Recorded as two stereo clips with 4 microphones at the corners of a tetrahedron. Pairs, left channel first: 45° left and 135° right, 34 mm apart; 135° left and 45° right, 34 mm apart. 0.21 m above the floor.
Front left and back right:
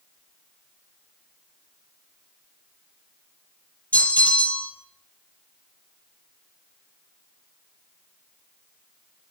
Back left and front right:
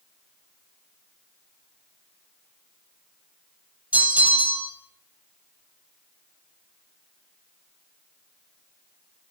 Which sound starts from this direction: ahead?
A bell, at 3.9 s.